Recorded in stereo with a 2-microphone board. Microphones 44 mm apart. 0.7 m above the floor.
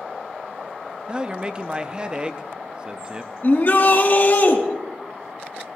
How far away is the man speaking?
About 0.5 m.